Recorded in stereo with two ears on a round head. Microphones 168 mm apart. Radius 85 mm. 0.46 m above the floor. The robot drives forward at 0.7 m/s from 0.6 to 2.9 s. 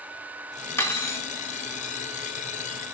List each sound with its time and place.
0.8 s cutlery clinking: 15° left (ahead or behind), 0.5 m